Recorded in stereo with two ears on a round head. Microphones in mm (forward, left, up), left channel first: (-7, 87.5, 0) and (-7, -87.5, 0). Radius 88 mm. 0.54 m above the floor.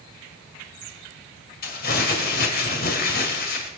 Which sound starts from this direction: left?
Crumpling, at 1.6 s.